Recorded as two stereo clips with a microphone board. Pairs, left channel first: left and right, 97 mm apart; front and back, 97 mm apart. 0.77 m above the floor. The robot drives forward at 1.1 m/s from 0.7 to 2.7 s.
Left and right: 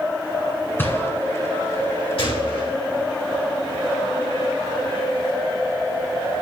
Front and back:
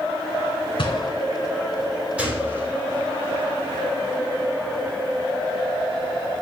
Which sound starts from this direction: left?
A gunshot, at 2.2 s.